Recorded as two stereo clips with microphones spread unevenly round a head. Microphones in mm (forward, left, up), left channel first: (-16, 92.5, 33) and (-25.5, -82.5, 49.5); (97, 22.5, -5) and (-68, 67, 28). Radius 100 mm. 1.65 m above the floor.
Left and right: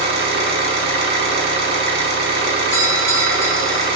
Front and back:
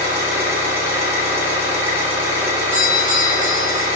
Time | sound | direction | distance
0.0 | an engine running | 120° right | 1.0 m
2.7 | a doorbell | 155° left | 1.0 m